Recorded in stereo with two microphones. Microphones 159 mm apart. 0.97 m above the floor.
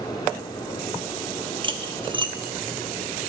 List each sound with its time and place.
1.6 s cutlery clinking: 30° right (ahead or behind), 1.1 m